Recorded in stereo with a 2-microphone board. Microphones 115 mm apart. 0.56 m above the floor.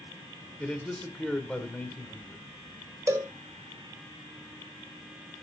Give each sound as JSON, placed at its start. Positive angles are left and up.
{"t": 0.6, "sound": "a man speaking", "side_deg": 10, "distance_m": 1.8}
{"t": 3.1, "sound": "a cowbell", "side_deg": -25, "distance_m": 1.0}